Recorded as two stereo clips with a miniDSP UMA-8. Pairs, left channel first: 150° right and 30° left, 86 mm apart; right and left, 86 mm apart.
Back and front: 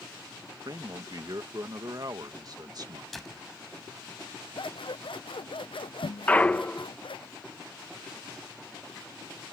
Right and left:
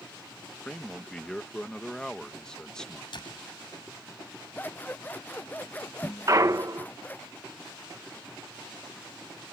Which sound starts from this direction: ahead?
A man speaking, at 0.7 s.